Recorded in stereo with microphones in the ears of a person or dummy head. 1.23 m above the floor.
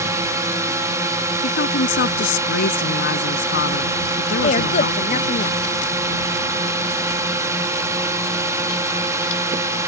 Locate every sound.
0.0 s a drone: 15° right (ahead or behind)
1.4 s a woman speaking: 65° left (ahead or behind)
4.4 s a woman speaking: 40° left (ahead or behind)